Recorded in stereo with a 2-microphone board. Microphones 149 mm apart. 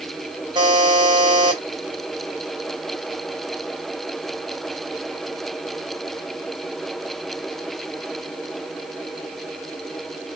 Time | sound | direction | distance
0.6 | a buzzer | 30° right (ahead or behind) | 1.5 m